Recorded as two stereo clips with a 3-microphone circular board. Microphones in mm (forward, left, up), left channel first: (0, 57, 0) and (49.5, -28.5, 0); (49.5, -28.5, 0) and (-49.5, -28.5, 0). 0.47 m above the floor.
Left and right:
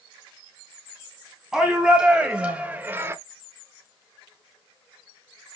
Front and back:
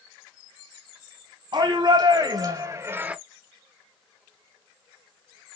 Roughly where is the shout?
Behind right.